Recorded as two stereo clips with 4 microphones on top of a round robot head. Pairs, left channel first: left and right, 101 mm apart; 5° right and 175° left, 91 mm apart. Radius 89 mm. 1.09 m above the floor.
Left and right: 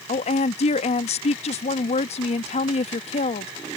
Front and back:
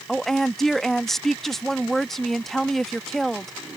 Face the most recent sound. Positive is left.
turn(degrees=85)